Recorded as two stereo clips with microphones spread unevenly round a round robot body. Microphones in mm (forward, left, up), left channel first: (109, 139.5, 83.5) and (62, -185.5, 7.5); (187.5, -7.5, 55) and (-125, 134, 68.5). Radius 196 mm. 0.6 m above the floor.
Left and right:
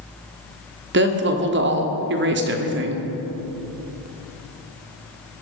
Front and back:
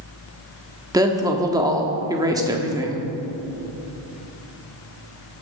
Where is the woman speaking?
125° right, 1.5 m.